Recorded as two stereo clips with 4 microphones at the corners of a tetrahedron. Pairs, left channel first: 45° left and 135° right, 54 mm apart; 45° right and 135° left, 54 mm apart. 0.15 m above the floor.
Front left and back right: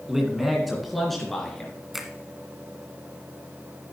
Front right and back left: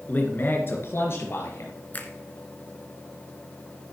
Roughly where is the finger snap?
Ahead right.